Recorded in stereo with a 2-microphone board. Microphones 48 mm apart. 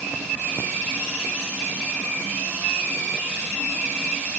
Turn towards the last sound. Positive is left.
No sound to turn to.